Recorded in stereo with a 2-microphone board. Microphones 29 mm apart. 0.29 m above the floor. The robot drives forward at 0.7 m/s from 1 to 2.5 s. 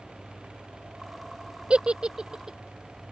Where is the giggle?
40° right (ahead or behind); by 2.6 s 30° right (ahead or behind).